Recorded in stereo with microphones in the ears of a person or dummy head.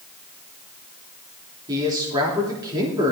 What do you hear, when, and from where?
1.7 s a man speaking: 20° right (ahead or behind), 3 m